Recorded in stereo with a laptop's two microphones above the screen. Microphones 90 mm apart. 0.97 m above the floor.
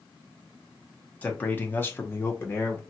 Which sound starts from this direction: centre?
A man speaking, at 1.2 s.